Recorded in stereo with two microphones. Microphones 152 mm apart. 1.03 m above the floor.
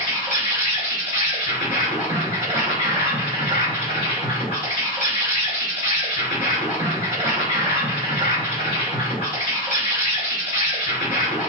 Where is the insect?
45° right (ahead or behind), 1.4 m.